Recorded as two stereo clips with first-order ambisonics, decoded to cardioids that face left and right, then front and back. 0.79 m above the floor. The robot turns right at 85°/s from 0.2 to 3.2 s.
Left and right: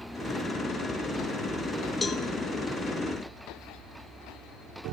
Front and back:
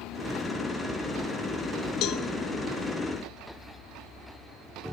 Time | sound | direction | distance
2.0 | a cowbell | 15° left | 1.1 m